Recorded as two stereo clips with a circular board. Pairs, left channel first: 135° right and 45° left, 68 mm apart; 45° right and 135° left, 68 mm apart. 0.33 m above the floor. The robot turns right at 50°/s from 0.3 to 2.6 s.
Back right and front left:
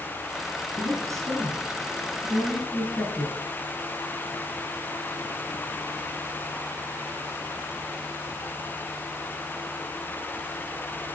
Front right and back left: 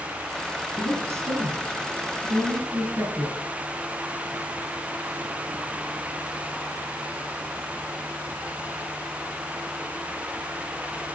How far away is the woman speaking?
About 6 m.